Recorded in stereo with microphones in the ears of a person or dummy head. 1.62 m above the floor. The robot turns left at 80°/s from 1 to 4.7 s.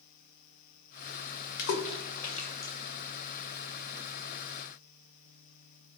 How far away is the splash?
About 0.5 m.